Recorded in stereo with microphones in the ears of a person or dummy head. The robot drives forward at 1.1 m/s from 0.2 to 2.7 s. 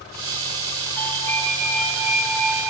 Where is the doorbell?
10° left (ahead or behind), 2 m; by 2.7 s 5° left (ahead or behind), 4 m.